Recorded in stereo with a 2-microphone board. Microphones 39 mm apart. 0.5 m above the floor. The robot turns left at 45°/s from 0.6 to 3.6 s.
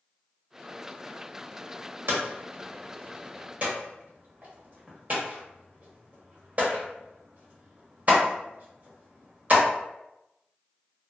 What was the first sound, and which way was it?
Hammering, 65° right (ahead or behind).